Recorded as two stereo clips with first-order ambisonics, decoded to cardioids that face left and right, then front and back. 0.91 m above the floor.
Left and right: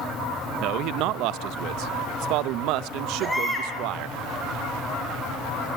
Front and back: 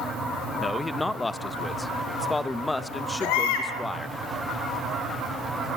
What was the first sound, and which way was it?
A man speaking, 80° right.